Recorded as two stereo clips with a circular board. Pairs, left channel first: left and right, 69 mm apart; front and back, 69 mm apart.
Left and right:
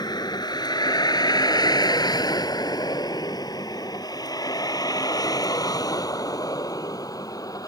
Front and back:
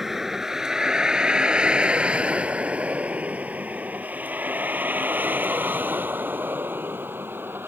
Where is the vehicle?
95° left; by 7.7 s 120° left.